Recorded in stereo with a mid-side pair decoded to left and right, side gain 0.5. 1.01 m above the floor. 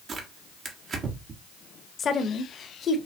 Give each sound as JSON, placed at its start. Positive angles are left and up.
{"t": 0.1, "sound": "tearing paper", "azimuth_deg": -45, "distance_m": 1.2}
{"t": 2.0, "sound": "a woman speaking", "azimuth_deg": 45, "distance_m": 1.0}